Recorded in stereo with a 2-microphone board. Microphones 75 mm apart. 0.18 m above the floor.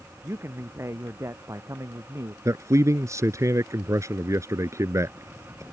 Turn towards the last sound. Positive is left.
turn(degrees=-40)  # may be behind; listen again after turning